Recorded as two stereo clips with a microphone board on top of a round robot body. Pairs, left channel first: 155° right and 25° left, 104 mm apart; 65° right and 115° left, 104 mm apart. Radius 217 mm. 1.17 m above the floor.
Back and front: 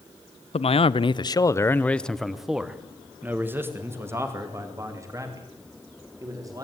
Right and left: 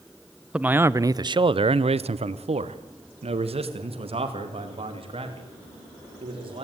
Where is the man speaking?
170° right, 0.9 m; by 6.6 s 80° left, 3.5 m.